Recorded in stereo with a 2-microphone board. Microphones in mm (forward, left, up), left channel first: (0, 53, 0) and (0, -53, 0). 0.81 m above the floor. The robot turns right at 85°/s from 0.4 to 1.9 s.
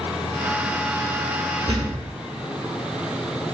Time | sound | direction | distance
1.7 | a thud | 80° right | 1.2 m